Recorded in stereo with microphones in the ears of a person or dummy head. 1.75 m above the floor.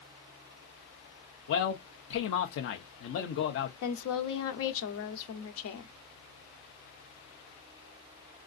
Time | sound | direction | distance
1.5 | a man speaking | 45° left (ahead or behind) | 0.7 m
3.8 | a woman speaking | 70° left (ahead or behind) | 0.8 m